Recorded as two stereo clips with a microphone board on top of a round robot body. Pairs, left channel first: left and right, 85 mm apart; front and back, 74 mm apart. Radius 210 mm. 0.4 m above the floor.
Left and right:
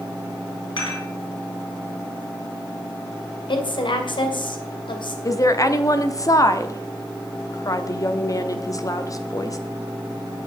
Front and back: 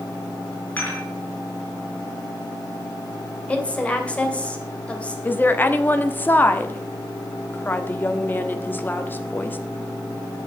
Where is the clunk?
No clunk in this recording.